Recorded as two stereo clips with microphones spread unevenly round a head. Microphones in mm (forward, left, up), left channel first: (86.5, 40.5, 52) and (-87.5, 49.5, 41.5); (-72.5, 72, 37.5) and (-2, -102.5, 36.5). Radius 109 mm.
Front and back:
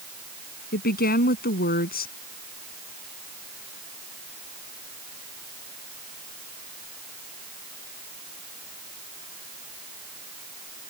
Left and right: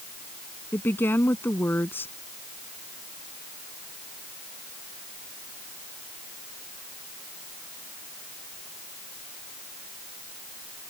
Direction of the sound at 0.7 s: 30° left.